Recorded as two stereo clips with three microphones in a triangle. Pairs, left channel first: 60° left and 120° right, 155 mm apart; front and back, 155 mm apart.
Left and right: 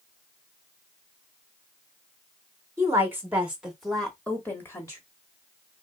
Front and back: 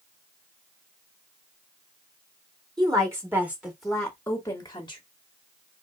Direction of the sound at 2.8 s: 165° right.